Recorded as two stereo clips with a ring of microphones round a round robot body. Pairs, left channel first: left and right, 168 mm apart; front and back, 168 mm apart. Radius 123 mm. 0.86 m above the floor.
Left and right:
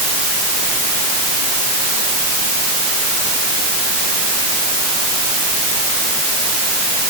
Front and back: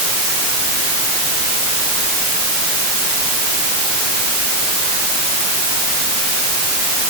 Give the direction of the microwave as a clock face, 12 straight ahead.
I don't hear a microwave.